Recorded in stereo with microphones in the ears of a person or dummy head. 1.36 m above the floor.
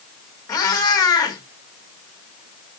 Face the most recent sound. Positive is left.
turn(degrees=20)  # may be behind; listen again after turning